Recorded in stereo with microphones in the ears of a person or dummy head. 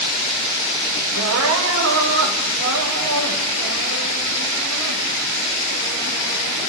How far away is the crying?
About 6 m.